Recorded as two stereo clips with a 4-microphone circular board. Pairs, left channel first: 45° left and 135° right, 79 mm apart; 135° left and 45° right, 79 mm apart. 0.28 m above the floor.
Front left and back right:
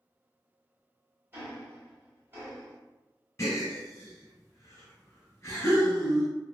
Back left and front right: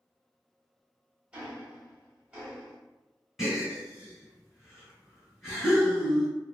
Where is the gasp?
40° left, 1.5 m.